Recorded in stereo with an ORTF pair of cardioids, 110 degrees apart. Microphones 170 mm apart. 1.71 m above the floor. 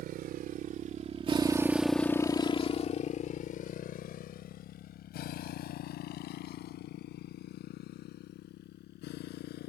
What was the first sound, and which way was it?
A motorcycle, 70° right.